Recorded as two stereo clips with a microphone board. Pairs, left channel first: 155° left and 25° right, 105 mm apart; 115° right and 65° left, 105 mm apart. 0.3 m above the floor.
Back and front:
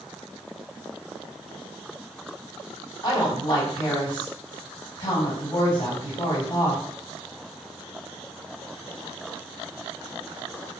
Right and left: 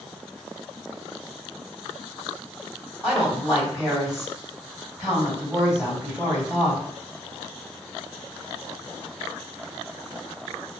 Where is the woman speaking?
145° left, 1.9 m.